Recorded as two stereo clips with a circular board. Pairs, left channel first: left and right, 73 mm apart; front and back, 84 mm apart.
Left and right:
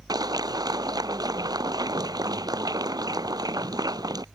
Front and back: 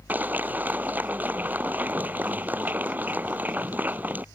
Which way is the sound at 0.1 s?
110° right.